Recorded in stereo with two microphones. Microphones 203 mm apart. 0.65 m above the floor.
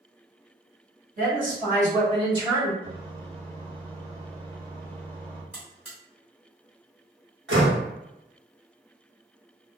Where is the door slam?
65° right (ahead or behind), 1.0 m.